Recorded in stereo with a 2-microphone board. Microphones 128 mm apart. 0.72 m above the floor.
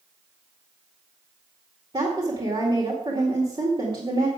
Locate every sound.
1.9 s a woman speaking: 40° right (ahead or behind), 2 m